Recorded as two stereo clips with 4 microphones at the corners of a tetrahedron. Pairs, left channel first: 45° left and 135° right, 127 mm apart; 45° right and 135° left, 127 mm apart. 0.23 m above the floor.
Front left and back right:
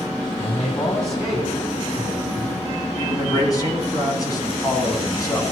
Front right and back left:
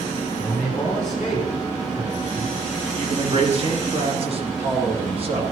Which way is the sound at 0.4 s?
30° left.